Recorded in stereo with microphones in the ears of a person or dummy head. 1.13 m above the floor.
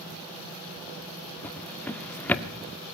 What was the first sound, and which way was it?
A drawer, 10° left (ahead or behind).